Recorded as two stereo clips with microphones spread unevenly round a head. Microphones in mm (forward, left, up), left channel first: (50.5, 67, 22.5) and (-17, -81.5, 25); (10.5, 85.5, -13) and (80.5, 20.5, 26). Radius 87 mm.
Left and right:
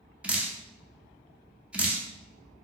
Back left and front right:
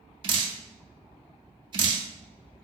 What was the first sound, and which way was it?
Dripping, 30° right.